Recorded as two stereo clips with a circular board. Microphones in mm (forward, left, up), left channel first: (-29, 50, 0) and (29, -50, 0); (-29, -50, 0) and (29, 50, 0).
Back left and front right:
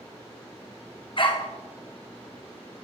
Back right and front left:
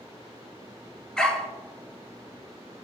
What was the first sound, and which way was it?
A dog barking, 155° left.